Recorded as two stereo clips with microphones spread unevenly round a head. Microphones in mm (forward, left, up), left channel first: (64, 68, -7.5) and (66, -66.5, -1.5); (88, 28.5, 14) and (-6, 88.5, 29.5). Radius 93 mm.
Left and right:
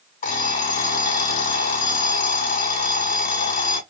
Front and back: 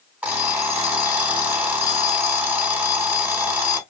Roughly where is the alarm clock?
Left.